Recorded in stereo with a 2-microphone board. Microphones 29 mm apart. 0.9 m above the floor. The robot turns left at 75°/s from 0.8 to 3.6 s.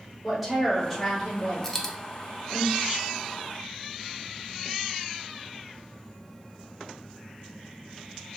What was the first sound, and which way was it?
A woman speaking, 175° right.